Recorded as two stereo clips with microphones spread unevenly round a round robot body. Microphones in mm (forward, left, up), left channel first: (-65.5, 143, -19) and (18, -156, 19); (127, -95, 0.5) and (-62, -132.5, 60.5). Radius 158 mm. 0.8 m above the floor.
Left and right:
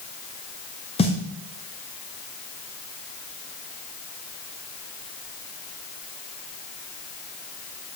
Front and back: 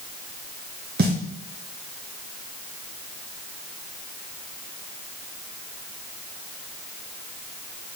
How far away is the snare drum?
About 0.9 m.